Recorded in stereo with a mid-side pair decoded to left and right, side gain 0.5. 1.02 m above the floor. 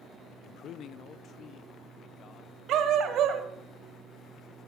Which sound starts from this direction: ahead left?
A man speaking, at 0.4 s.